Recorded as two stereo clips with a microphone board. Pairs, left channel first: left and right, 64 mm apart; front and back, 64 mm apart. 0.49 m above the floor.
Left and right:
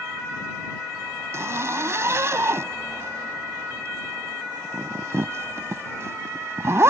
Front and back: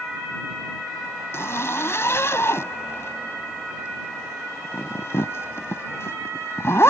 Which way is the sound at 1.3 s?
45° right.